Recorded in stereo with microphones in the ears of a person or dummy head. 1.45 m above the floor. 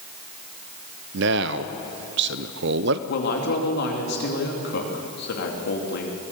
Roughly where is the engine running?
I don't hear an engine running.